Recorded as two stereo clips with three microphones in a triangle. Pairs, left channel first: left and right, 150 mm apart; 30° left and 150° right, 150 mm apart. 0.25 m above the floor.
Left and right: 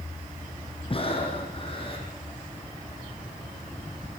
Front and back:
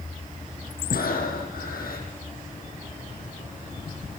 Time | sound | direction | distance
0.9 | breathing | 40° left | 6.5 m